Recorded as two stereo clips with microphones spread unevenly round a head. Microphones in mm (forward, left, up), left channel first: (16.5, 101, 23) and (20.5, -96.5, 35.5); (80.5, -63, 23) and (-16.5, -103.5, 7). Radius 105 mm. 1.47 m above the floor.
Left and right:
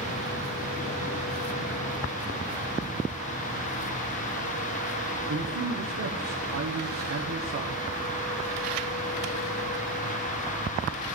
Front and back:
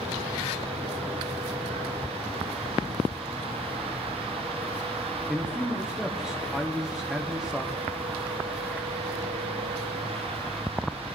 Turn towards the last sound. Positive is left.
turn(degrees=-70)